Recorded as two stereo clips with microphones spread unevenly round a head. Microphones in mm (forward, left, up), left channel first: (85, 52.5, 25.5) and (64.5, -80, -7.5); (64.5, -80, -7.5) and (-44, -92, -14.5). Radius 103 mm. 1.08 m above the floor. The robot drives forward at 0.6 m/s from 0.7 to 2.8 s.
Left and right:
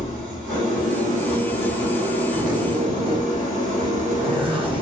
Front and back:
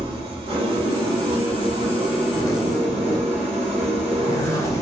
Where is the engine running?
140° right, 1.7 m; by 4.8 s 155° right, 3 m.